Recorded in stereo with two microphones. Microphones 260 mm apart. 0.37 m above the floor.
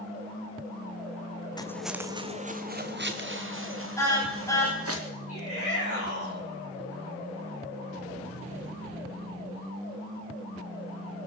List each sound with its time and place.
1.6 s footsteps: 15° left (ahead or behind), 0.8 m; by 5.0 s 55° right (ahead or behind), 3 m
4.0 s a car horn: 10° left (ahead or behind), 10 m
5.3 s a shout: 60° left (ahead or behind), 3 m